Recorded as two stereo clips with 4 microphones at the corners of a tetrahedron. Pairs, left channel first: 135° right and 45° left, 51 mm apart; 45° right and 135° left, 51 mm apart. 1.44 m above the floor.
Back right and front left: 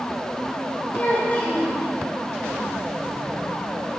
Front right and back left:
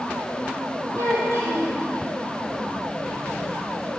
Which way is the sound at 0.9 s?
160° left.